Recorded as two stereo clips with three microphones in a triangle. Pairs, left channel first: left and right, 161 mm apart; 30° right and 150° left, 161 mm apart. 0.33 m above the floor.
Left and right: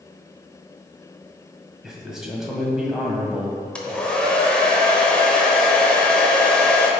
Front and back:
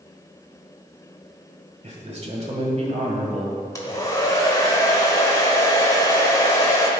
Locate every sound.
1.8 s a man speaking: 175° right, 1.6 m
3.8 s a hair dryer: 15° left, 1.1 m